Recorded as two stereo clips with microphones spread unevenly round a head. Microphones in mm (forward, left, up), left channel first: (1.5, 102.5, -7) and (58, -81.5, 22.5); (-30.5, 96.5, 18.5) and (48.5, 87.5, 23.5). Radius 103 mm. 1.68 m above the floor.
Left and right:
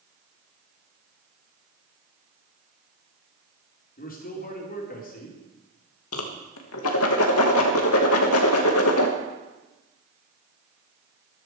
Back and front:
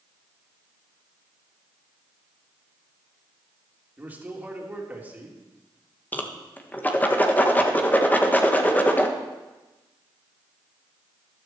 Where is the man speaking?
60° left, 3 m.